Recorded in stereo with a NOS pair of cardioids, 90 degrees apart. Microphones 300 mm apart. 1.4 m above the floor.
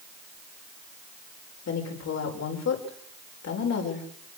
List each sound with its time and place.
1.7 s a woman speaking: 60° left, 6 m